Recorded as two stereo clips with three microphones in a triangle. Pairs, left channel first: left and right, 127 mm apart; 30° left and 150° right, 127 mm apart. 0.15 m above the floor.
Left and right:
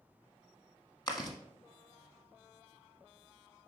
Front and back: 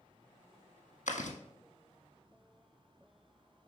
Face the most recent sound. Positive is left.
turn(degrees=35)